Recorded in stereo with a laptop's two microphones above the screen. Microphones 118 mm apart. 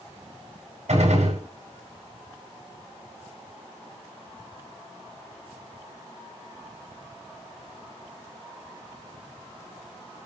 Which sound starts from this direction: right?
A gunshot, at 0.9 s.